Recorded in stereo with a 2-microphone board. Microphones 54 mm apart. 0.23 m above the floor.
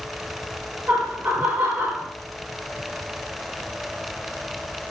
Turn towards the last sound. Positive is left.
turn(degrees=-65)  # may be behind; listen again after turning